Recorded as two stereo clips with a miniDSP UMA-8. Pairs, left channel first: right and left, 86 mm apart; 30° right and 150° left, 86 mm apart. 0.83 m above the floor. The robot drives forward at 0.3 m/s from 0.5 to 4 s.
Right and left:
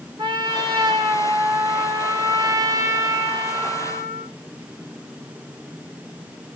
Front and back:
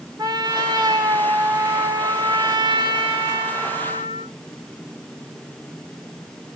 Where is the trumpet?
115° left, 1.9 m; by 4.3 s 135° left, 2.5 m.